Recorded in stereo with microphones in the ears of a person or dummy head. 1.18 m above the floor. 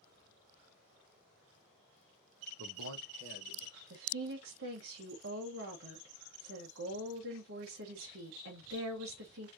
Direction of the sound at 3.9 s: 70° right (ahead or behind).